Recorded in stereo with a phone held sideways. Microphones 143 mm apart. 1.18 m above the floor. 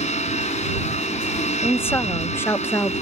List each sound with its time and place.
0.0 s a machine running: 50° left (ahead or behind)
1.6 s a woman speaking: 15° left (ahead or behind)